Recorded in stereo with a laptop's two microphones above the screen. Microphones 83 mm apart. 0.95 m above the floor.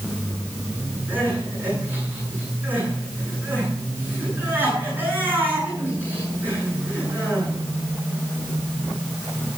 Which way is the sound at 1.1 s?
20° right (ahead or behind).